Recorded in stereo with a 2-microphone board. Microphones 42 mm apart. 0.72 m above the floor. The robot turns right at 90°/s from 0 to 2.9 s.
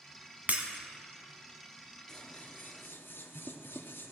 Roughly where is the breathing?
I don't hear breathing.